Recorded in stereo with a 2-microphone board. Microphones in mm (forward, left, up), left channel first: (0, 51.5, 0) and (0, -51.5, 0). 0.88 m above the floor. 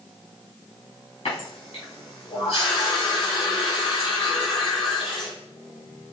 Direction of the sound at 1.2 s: 85° left.